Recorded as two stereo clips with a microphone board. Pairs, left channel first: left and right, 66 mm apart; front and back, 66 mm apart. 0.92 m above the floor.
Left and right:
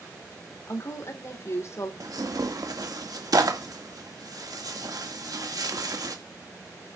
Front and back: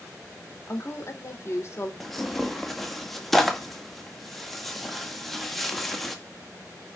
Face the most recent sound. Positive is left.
turn(degrees=-85)